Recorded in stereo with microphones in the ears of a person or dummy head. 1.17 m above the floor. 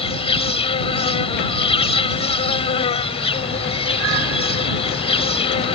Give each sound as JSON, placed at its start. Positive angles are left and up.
{"t": 0.0, "sound": "an insect", "side_deg": 30}